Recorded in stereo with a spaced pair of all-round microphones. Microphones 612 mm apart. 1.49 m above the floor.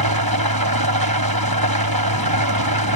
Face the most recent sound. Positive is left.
turn(degrees=-35)  # may be behind; listen again after turning